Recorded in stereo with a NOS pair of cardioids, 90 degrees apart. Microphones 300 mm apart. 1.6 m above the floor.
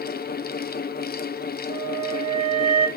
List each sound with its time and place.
0.0 s a fan: 30° left, 0.9 m
1.7 s a flute: 20° right, 3 m